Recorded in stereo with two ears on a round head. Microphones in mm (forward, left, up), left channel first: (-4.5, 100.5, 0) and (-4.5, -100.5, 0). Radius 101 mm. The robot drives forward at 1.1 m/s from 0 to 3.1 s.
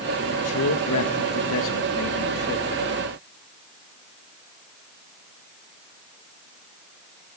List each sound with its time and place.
0.3 s a man speaking: 70° left (ahead or behind), 2.5 m; by 2.9 s 45° left (ahead or behind), 3 m